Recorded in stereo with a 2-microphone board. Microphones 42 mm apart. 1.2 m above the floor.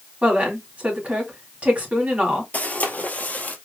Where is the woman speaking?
35° right (ahead or behind), 3 m.